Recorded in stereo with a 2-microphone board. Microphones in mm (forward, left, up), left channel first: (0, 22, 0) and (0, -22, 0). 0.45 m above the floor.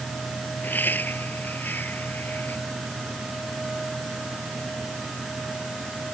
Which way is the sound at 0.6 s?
50° left (ahead or behind).